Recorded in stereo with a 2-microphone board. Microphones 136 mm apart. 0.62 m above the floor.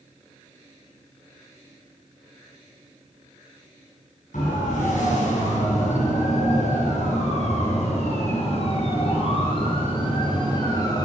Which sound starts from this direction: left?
A siren, at 4.3 s.